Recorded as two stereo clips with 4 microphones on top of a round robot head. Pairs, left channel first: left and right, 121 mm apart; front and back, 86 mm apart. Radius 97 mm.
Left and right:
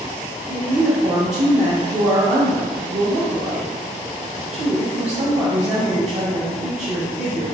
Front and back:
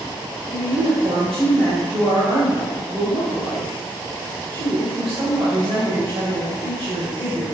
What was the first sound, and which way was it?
A woman speaking, 120° right.